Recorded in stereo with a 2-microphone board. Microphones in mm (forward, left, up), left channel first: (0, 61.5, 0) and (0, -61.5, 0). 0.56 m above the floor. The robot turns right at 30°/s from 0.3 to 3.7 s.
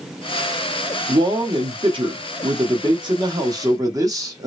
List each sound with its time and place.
1.1 s a man speaking: 120° right, 0.9 m; by 4.5 s 45° right, 0.9 m